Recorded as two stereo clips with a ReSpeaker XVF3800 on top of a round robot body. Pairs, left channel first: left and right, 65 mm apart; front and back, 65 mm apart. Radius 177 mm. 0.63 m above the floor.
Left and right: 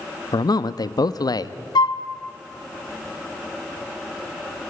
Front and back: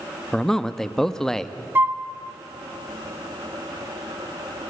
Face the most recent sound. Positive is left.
turn(degrees=115)